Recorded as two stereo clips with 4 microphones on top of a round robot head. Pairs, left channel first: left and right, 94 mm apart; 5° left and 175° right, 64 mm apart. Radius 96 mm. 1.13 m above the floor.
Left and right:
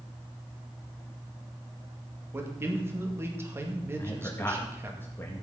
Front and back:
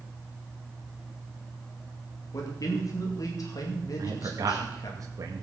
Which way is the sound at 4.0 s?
160° left.